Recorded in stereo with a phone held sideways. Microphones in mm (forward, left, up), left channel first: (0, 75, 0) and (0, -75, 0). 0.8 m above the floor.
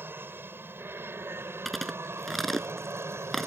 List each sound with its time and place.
0.0 s an aircraft: 15° right (ahead or behind)
1.6 s chewing: centre (ahead or behind)